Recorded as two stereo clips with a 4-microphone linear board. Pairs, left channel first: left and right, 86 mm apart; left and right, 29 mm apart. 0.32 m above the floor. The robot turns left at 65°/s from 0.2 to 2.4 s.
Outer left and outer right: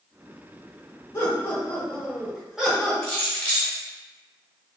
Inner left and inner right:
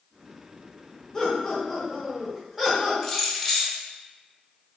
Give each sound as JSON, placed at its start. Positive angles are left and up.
{"t": 1.1, "sound": "laughter", "azimuth_deg": 70, "distance_m": 1.1}
{"t": 3.0, "sound": "keys jangling", "side_deg": 10, "distance_m": 0.8}